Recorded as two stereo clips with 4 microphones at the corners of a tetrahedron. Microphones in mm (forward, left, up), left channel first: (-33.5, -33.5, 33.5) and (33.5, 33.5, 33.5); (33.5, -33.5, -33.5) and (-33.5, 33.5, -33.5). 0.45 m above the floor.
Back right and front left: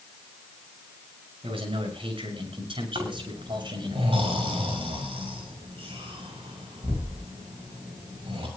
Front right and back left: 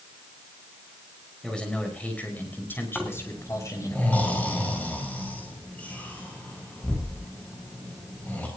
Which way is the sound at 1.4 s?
40° left.